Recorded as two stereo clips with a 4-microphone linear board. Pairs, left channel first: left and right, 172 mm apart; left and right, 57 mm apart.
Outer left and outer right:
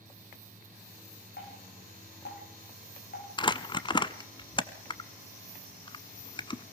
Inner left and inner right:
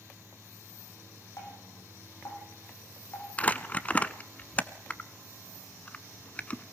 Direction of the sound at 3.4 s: 25° left (ahead or behind).